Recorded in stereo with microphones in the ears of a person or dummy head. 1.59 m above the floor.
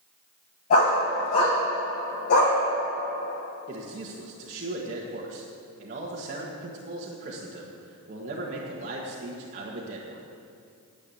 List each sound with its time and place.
0.7 s a dog barking: 45° left (ahead or behind), 4.5 m; by 2.6 s 65° left (ahead or behind), 2.5 m
3.7 s a man speaking: 40° right (ahead or behind), 1.7 m